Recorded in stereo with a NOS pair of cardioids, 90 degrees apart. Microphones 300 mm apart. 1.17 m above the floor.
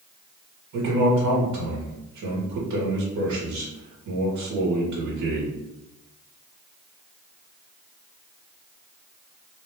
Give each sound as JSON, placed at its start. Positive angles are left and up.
{"t": 0.7, "sound": "a man speaking", "azimuth_deg": -65, "distance_m": 2.0}